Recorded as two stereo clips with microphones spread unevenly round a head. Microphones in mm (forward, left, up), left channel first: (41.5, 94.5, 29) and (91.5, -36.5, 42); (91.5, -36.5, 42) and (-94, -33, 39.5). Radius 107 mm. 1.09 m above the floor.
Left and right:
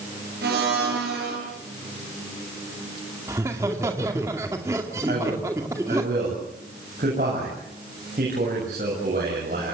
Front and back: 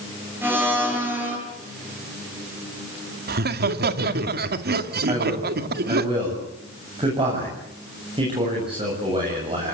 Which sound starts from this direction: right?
A blender, at 0.4 s.